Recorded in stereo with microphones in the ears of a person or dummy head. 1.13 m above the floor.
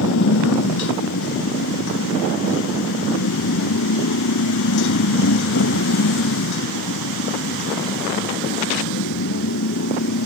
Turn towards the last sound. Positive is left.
turn(degrees=65)  # may be behind; listen again after turning